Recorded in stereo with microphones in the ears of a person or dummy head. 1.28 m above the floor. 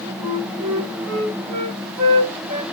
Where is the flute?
30° right (ahead or behind), 1.2 m.